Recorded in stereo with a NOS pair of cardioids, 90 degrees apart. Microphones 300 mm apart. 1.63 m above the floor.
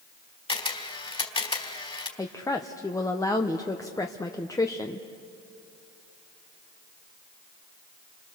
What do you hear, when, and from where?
0.5 s a camera shutter: 20° left, 3 m
2.2 s a woman speaking: 10° left, 1.1 m